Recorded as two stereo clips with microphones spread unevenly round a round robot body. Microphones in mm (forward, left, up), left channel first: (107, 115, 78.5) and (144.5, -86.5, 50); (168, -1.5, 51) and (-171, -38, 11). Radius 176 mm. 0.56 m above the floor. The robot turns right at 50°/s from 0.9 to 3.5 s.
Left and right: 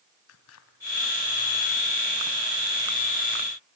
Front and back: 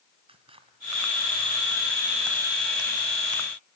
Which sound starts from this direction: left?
Scissors, at 0.3 s.